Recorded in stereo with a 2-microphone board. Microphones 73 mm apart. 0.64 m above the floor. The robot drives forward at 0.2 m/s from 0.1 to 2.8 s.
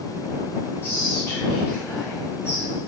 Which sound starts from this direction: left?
Whispering, at 0.8 s.